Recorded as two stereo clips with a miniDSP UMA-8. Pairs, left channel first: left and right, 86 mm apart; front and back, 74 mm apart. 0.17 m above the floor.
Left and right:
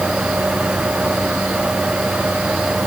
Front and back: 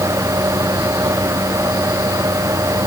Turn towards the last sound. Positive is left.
No sound to turn to.